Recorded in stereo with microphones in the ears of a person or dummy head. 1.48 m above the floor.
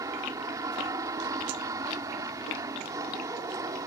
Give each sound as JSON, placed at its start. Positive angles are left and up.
{"t": 0.0, "sound": "an aircraft", "side_deg": -15}